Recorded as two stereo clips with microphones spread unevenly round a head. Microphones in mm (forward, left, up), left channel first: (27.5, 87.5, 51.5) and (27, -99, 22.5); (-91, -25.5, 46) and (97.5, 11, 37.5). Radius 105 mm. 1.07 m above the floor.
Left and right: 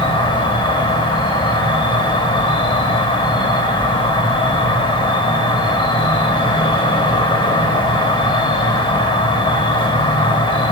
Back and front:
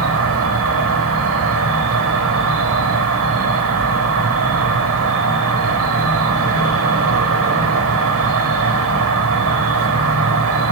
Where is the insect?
25° left, 1.6 m.